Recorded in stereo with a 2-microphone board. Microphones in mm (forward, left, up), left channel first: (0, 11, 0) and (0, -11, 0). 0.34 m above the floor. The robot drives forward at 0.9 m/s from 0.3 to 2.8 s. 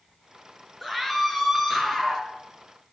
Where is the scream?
5° left (ahead or behind), 4.5 m.